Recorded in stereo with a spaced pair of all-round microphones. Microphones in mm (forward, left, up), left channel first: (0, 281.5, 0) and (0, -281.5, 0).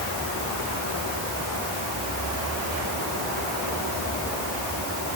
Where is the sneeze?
No sneeze in this recording.